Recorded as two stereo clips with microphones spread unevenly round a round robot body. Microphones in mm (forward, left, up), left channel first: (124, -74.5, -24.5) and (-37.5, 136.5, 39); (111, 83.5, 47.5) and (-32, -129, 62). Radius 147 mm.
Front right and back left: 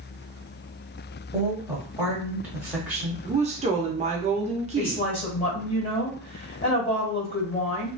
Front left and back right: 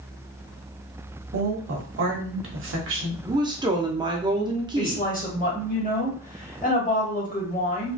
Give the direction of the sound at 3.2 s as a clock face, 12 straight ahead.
6 o'clock.